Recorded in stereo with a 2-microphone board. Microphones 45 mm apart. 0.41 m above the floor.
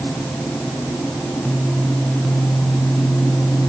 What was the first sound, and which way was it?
Only background noise.